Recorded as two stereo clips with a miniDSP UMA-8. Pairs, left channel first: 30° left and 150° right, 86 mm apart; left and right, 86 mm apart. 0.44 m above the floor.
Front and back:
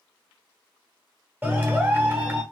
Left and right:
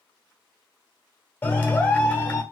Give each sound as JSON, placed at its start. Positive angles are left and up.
{"t": 1.4, "sound": "a clap", "azimuth_deg": 150, "distance_m": 1.0}